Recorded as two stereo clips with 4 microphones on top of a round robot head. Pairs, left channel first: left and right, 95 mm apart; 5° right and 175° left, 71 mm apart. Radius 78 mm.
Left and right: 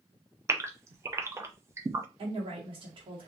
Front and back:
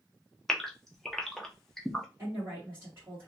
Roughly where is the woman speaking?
Behind right.